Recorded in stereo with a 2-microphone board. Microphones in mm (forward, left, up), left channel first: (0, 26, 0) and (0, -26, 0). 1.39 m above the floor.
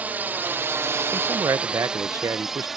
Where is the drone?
30° right (ahead or behind); by 2.8 s 5° right (ahead or behind).